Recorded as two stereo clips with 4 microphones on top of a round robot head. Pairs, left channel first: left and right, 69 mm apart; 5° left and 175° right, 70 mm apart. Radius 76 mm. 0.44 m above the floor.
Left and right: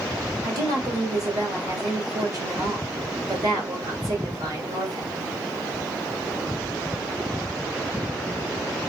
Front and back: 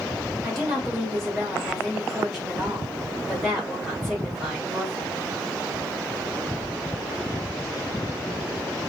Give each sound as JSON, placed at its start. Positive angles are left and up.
{"t": 0.4, "sound": "a woman speaking", "azimuth_deg": -85, "distance_m": 1.8}